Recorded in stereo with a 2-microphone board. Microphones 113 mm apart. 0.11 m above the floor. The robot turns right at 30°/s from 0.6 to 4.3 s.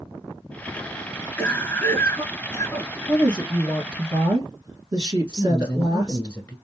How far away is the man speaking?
About 1.2 m.